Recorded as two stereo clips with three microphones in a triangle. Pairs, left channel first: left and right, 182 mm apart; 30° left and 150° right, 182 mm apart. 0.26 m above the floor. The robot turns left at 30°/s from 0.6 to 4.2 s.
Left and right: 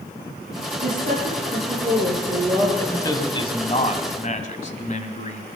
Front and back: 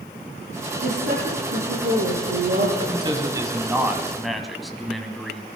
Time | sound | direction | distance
0.8 | a woman speaking | 115° right | 5 m
2.8 | a man speaking | 165° left | 1.4 m